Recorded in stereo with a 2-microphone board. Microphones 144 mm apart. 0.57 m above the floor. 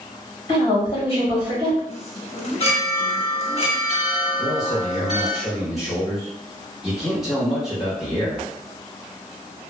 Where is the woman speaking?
35° left (ahead or behind), 1.4 m.